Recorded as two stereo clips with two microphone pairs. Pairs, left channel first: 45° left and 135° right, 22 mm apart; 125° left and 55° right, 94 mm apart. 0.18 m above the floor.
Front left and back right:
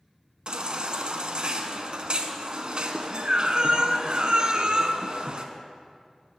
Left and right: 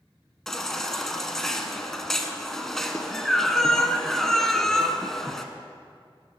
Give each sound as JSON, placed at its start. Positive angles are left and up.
{"t": 0.5, "sound": "a baby crying", "azimuth_deg": -155, "distance_m": 0.6}